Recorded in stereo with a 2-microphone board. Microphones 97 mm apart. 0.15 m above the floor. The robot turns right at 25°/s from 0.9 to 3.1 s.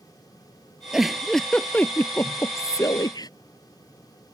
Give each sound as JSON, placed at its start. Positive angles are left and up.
{"t": 0.9, "sound": "a giggle", "azimuth_deg": -5}